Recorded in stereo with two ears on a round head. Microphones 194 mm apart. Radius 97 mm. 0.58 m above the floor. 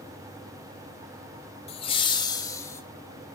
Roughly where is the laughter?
Left.